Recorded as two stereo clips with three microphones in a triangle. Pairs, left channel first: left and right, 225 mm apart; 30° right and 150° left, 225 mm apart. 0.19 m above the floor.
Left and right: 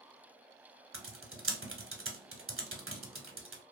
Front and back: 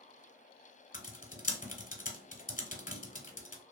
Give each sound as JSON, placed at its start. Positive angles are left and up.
{"t": 0.9, "sound": "typing on a keyboard", "azimuth_deg": -80, "distance_m": 0.8}